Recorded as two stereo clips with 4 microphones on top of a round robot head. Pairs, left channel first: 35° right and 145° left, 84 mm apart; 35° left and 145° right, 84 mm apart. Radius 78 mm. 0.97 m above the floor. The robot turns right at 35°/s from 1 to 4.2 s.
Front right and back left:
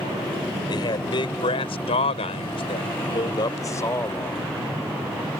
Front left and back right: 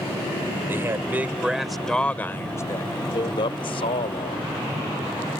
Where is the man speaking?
80° right; by 4.4 s 35° left.